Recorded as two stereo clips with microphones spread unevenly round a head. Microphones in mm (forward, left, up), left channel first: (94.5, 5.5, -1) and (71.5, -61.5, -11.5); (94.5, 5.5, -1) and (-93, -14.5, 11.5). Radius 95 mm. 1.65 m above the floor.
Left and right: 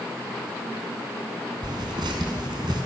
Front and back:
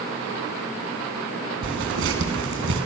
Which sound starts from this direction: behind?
Tearing paper, at 1.6 s.